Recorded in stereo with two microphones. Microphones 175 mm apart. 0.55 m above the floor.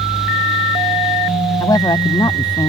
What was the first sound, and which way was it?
A woman speaking, 20° left (ahead or behind).